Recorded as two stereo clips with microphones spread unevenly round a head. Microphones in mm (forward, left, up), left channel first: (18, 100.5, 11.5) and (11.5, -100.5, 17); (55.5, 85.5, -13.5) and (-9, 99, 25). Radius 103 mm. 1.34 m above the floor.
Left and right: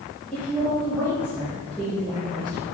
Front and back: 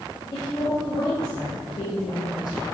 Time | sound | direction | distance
0.3 | a woman speaking | 5° right | 2 m